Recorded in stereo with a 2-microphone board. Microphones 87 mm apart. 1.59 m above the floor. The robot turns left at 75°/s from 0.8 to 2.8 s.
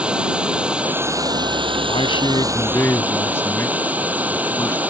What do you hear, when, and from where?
0.0 s running water: 15° right; by 4.9 s 165° right
1.9 s a man speaking: 95° left; by 4.8 s 25° left